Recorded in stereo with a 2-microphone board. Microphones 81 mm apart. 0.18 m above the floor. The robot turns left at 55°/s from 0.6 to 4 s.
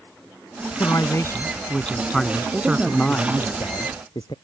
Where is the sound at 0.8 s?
80° left; by 3.5 s 70° right.